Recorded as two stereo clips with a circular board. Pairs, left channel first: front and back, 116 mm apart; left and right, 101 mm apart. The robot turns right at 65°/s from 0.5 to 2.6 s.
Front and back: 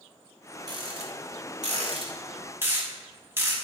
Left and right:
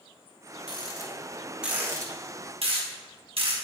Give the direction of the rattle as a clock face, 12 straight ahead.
8 o'clock.